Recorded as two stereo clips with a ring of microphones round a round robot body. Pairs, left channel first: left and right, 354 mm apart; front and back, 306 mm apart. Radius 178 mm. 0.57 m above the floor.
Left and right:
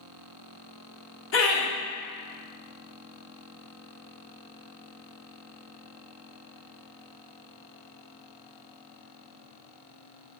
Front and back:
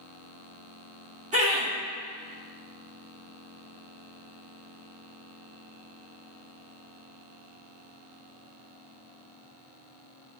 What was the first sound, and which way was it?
Laughter, 125° left.